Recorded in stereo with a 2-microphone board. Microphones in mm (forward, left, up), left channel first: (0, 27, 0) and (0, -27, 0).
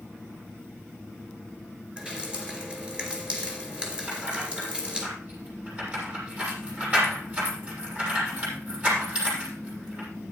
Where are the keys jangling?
25° right (ahead or behind), 6.5 m.